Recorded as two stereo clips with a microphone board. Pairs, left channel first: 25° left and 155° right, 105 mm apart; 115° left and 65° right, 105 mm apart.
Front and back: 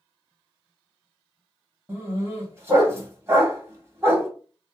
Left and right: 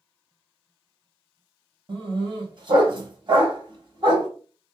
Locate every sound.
1.9 s a dog barking: 95° right, 1.2 m